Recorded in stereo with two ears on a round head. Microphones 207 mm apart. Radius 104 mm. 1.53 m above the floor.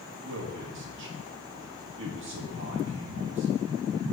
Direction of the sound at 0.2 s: 55° right (ahead or behind).